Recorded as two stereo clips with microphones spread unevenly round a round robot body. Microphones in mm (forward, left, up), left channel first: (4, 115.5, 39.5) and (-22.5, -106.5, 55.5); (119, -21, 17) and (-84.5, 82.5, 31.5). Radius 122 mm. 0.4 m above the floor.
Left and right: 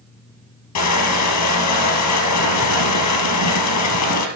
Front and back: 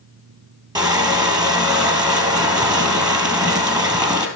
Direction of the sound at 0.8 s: 80° left.